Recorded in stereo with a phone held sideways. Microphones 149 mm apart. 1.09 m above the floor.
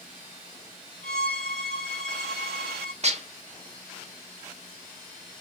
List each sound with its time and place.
1.0 s a violin: 80° left, 2 m
3.0 s dishes clattering: 45° right (ahead or behind), 0.7 m